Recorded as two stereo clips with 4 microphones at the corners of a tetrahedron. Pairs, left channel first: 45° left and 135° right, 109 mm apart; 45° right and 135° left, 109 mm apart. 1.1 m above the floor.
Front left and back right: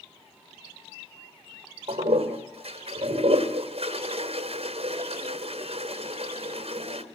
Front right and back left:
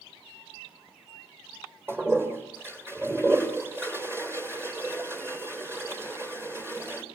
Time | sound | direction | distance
1.9 | a toilet flushing | 160° right | 3 m